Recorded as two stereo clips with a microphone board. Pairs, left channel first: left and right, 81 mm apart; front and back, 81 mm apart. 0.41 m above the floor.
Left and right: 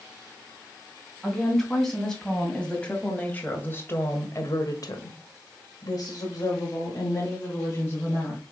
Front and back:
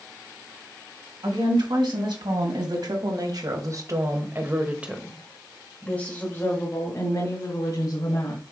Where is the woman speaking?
175° left, 3 m; by 8.4 s 40° left, 3 m.